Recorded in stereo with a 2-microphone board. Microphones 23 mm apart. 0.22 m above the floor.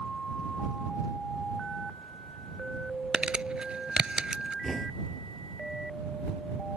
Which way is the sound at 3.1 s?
40° right (ahead or behind).